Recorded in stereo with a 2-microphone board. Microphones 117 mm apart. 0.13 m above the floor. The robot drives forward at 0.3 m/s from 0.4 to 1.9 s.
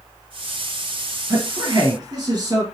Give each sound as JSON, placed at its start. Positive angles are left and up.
{"t": 1.3, "sound": "a man speaking", "side_deg": -35, "distance_m": 2.5}